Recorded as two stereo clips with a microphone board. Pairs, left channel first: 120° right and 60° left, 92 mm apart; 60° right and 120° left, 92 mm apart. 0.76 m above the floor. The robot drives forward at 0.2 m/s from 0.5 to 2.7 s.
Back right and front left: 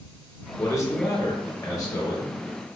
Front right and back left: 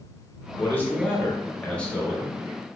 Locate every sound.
0.6 s a man speaking: 105° right, 1.0 m; by 2.4 s 135° right, 1.1 m